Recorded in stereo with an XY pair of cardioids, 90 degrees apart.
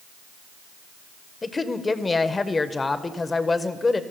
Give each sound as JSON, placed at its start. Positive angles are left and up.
{"t": 1.4, "sound": "a woman speaking", "azimuth_deg": 30, "distance_m": 0.7}